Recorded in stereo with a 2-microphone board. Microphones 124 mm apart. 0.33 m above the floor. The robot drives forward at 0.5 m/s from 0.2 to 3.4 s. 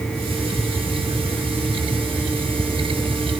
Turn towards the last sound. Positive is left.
No sound to turn to.